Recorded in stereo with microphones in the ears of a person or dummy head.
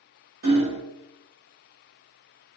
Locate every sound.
0.4 s hammering: 50° right (ahead or behind), 0.9 m